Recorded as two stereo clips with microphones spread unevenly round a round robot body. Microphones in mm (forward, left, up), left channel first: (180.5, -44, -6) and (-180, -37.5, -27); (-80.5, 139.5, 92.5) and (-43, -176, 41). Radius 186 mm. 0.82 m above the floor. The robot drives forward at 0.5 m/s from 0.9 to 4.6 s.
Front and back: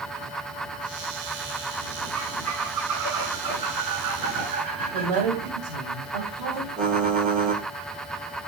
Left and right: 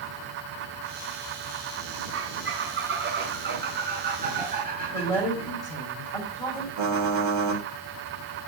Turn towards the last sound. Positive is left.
turn(degrees=-115)